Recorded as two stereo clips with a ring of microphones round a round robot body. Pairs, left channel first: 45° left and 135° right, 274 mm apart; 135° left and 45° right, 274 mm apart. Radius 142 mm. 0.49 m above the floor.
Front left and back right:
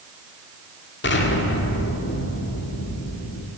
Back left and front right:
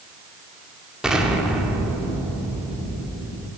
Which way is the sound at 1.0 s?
40° left.